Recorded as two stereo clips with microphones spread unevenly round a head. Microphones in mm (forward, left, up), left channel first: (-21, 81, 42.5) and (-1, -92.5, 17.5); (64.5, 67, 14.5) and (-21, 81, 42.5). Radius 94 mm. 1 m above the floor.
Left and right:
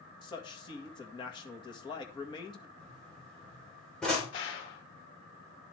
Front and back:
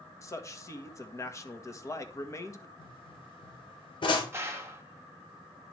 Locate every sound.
0.2 s a man speaking: 30° left, 1.7 m
2.8 s a pop: 10° left, 3.5 m
4.3 s a gunshot: 105° left, 2.5 m